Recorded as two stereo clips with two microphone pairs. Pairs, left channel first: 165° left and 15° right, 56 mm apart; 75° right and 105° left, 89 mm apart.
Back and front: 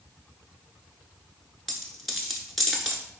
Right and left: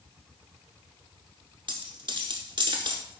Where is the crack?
I don't hear a crack.